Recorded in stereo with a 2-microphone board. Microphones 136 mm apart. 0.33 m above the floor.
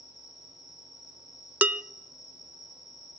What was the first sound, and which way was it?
An insect, 60° left (ahead or behind).